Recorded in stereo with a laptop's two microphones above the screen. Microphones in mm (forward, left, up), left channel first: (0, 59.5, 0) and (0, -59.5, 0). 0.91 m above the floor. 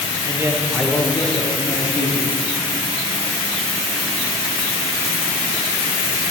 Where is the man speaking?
30° right (ahead or behind), 0.8 m; by 2.4 s 60° left (ahead or behind), 1.5 m.